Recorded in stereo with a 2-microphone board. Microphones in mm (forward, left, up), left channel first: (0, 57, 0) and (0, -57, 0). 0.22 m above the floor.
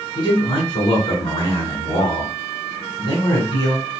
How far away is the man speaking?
About 1.3 m.